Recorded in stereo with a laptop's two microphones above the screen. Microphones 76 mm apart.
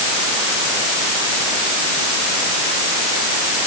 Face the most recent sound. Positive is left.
No sound to turn to.